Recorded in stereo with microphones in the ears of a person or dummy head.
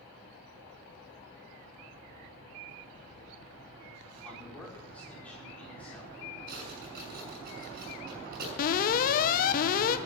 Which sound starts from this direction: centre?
A man speaking, at 4.2 s.